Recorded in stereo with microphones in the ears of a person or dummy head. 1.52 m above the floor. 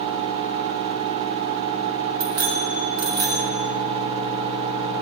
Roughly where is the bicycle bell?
Right.